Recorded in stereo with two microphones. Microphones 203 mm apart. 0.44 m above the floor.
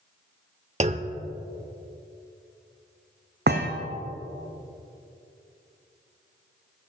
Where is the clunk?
35° right (ahead or behind), 0.5 m.